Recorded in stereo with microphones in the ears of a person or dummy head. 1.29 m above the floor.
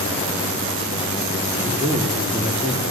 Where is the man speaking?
15° right (ahead or behind), 3.5 m; by 2.9 s 25° right (ahead or behind), 2.5 m.